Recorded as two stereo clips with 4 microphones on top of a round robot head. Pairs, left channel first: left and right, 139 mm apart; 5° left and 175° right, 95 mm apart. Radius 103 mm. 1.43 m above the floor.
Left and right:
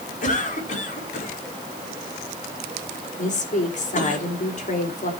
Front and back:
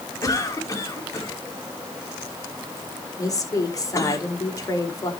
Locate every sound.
0.2 s a cough: 60° left, 5 m
3.2 s a woman speaking: 60° left, 4.5 m